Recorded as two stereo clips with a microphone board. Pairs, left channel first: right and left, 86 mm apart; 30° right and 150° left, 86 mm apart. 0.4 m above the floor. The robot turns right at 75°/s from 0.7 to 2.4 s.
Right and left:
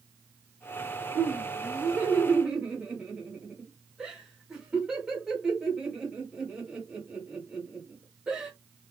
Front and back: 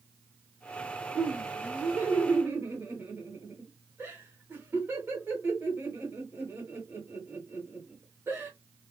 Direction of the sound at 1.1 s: 65° left.